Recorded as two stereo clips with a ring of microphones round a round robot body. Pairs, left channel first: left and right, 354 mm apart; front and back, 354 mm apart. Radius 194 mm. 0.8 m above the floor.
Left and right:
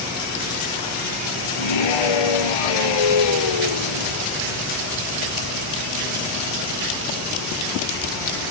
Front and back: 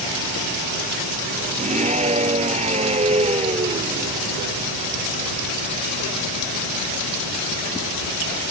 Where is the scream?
110° left; by 4.2 s 105° left.